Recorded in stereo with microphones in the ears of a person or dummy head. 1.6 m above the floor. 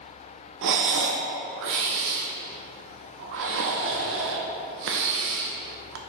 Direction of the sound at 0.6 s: 65° right (ahead or behind).